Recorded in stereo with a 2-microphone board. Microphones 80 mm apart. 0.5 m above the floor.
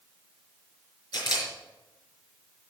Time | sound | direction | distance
1.1 | a camera shutter | 65° left (ahead or behind) | 4 m